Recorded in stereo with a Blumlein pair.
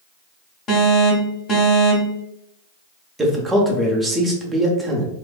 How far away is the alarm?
About 0.9 m.